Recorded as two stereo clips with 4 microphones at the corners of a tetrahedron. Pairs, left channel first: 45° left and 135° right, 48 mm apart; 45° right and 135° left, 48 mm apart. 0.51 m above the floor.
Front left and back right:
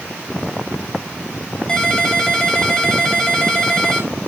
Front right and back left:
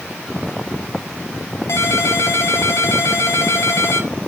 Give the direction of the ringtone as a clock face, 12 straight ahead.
1 o'clock.